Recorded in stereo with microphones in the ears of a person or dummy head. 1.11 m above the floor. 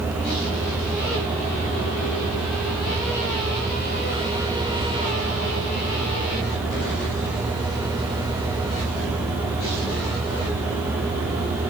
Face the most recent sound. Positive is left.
No sound to turn to.